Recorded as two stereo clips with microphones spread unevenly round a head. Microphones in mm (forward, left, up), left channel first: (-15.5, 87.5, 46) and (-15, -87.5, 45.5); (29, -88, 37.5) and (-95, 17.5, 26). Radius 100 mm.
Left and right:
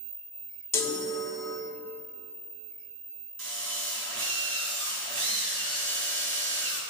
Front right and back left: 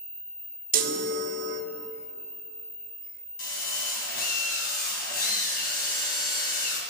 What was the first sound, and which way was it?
A chime, 165° left.